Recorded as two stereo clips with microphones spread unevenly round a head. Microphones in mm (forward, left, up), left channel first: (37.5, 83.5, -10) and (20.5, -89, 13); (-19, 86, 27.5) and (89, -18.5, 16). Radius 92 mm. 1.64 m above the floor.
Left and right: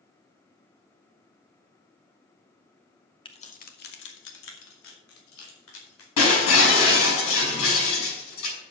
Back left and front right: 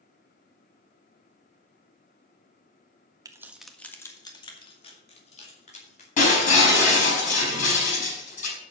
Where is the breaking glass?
100° left, 6 m.